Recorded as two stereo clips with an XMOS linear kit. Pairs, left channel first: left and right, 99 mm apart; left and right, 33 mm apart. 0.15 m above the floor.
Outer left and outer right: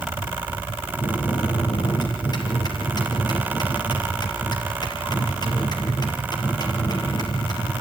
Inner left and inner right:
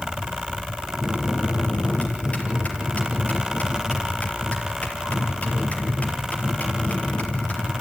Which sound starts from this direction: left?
A bell, at 1.0 s.